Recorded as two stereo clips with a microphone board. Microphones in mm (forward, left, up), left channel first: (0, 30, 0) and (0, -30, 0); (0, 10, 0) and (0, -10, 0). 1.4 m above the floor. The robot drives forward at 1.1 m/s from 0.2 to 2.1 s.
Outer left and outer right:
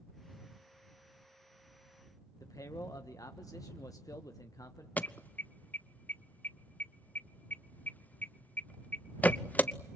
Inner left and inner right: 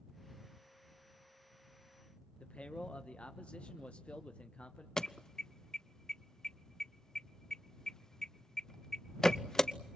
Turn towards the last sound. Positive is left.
turn(degrees=30)  # may be behind; listen again after turning